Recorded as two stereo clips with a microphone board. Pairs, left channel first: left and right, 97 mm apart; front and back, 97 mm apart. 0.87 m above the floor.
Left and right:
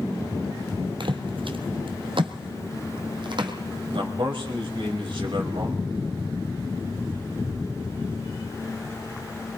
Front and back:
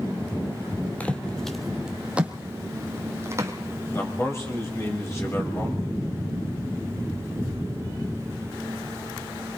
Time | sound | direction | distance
1.0 | footsteps | 75° right | 1.6 m
3.9 | a man speaking | 60° right | 5 m